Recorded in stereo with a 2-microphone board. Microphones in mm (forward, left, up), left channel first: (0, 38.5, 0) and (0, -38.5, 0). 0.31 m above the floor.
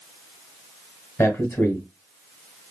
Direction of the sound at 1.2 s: 40° left (ahead or behind).